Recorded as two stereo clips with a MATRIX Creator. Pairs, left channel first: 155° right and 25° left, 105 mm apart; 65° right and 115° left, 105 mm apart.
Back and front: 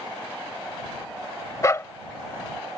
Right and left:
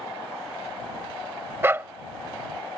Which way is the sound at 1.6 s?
165° left.